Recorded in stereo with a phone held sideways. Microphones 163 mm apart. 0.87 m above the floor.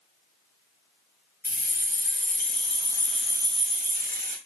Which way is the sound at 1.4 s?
65° left (ahead or behind).